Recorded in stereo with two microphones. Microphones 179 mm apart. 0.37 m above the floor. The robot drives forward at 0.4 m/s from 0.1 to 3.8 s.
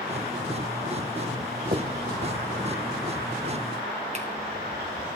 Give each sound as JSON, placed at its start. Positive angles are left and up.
{"t": 1.7, "sound": "a finger snap", "side_deg": -55, "distance_m": 1.5}